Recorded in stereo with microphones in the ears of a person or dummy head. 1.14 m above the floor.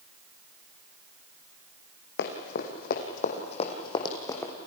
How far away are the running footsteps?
About 3.5 m.